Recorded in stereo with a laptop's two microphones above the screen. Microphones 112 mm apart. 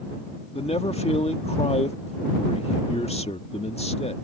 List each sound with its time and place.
0.6 s a man speaking: 65° left (ahead or behind)